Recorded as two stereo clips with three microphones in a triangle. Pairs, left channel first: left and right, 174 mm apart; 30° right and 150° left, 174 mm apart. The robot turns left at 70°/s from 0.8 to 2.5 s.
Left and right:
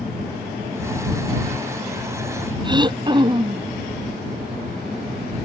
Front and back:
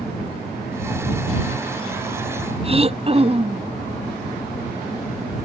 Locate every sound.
2.6 s throat clearing: 155° right